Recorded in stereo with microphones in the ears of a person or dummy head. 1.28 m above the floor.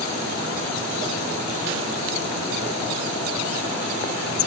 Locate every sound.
Only background noise.